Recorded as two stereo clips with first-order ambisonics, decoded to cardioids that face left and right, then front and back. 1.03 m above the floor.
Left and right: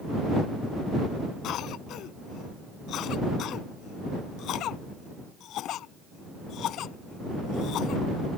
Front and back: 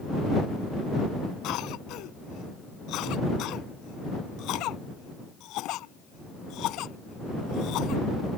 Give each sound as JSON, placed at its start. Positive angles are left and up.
{"t": 1.4, "sound": "a cough", "azimuth_deg": 40}